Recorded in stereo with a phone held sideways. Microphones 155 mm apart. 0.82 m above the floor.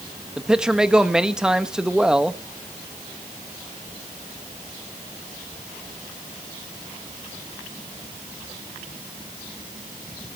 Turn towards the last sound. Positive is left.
turn(degrees=-5)  # may be behind; listen again after turning